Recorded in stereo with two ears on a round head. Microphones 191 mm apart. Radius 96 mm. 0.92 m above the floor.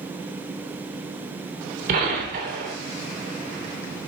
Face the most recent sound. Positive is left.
turn(degrees=-40)  # may be behind; listen again after turning